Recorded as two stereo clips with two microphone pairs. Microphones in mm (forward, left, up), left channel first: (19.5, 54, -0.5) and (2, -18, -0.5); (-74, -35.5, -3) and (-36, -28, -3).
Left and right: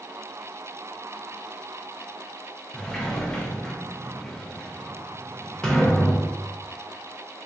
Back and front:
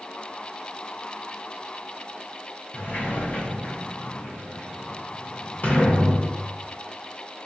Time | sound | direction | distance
2.7 | a sliding door | 155° left | 0.8 m